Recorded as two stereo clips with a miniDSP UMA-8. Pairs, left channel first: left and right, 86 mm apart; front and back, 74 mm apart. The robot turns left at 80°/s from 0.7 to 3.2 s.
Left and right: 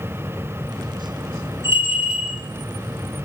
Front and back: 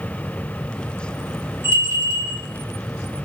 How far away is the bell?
About 2 m.